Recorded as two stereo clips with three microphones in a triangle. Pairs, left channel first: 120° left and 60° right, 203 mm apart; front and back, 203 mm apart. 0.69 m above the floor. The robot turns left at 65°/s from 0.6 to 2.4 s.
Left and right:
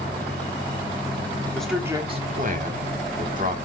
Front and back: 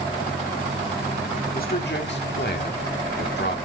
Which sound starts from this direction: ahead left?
A man speaking, at 1.5 s.